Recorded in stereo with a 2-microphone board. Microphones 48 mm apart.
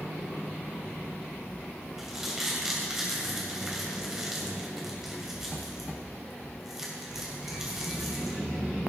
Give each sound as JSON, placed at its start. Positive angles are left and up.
{"t": 2.0, "sound": "crumpling", "side_deg": -10, "distance_m": 3.0}